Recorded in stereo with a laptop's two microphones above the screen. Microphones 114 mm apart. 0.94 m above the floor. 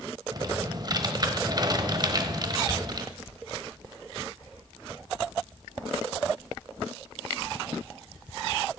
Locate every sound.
0.3 s typing on a keyboard: 40° right (ahead or behind), 1.0 m